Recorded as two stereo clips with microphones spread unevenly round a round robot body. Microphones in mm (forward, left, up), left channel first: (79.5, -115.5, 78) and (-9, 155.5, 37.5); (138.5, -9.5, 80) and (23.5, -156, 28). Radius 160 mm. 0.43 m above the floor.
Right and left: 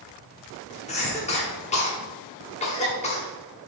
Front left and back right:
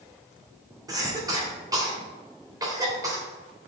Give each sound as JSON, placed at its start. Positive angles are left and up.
{"t": 0.9, "sound": "a cough", "azimuth_deg": -135, "distance_m": 1.5}